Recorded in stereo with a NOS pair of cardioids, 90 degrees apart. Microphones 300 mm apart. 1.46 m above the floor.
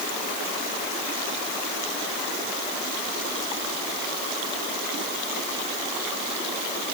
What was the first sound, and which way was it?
Only background noise.